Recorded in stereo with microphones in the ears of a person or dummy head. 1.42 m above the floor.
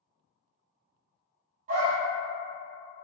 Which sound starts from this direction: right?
A dog barking, at 1.7 s.